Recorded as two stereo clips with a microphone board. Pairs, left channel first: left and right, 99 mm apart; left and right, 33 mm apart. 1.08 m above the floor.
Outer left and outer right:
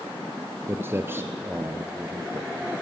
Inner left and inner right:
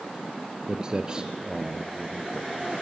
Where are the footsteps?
25° right (ahead or behind), 1.2 m; by 2.5 s 20° right (ahead or behind), 1.9 m.